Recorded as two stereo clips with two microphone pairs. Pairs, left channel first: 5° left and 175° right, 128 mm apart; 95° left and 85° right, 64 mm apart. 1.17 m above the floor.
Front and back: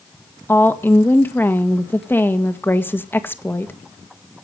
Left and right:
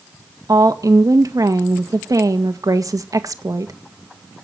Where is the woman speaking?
65° right, 1.8 m.